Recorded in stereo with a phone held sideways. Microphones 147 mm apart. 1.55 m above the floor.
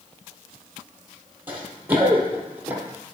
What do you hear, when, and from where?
1.5 s running footsteps: 15° right (ahead or behind), 2 m